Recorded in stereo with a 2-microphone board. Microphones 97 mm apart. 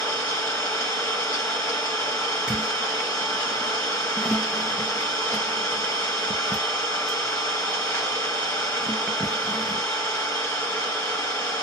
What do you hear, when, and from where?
0.0 s an engine running: 20° left (ahead or behind), 1.4 m
2.5 s a squeak: 10° right (ahead or behind), 0.5 m